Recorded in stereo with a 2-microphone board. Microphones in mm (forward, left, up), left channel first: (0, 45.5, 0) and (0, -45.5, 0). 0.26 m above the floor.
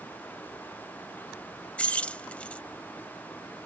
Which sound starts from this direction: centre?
Keys jangling, at 1.8 s.